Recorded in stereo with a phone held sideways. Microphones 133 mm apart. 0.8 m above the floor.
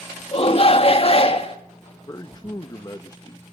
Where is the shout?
45° left (ahead or behind), 1.6 m.